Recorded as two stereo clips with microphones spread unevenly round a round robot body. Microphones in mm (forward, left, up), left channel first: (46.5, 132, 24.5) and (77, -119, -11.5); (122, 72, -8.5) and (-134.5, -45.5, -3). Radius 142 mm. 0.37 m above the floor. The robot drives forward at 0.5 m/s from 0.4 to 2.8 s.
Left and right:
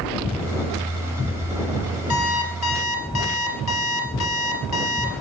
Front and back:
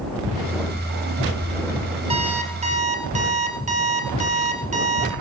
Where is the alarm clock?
135° left, 3 m; by 5.1 s 140° left, 3.5 m.